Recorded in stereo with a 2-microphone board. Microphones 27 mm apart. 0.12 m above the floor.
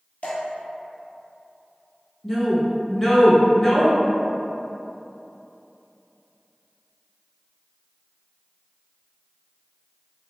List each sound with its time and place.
0.2 s dripping: 50° left (ahead or behind), 1.5 m
2.2 s a woman speaking: 15° left (ahead or behind), 1.2 m